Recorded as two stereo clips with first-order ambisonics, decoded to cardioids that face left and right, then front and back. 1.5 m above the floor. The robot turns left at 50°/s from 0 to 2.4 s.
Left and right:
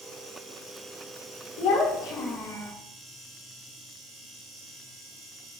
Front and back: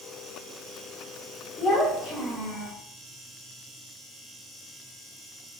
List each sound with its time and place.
1.6 s a child speaking: 75° left, 2.0 m; by 2.7 s 35° left, 2.0 m